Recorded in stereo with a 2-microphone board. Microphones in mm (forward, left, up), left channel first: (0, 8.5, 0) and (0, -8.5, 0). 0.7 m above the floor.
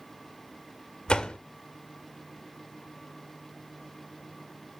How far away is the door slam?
About 1.8 m.